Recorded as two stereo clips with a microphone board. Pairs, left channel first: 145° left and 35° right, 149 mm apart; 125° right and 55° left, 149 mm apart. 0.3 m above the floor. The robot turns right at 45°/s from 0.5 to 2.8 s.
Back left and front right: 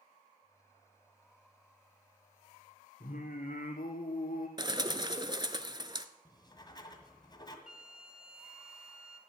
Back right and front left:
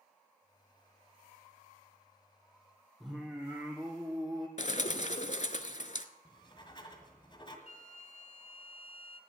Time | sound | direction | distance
3.0 | singing | 145° left | 2.5 m
4.6 | a bird | 90° right | 0.8 m
6.2 | writing | 165° right | 1.9 m
7.7 | a flute | 50° left | 1.2 m